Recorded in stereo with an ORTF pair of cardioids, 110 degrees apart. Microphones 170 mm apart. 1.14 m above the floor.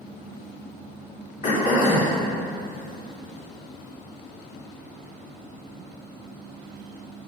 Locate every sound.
1.4 s throat clearing: 50° left, 2.5 m